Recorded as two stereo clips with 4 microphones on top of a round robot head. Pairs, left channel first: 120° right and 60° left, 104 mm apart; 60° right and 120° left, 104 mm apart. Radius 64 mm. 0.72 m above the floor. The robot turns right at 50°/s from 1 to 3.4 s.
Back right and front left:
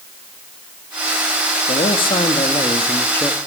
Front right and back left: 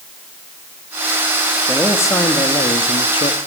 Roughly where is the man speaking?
Behind right.